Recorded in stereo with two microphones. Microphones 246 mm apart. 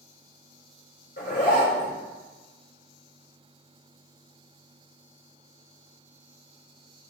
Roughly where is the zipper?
Left.